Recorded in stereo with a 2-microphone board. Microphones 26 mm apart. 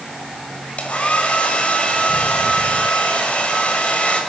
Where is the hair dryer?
55° left (ahead or behind), 6 m.